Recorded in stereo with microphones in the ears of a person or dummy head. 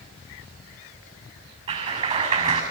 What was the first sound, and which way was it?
A clap, 35° right (ahead or behind).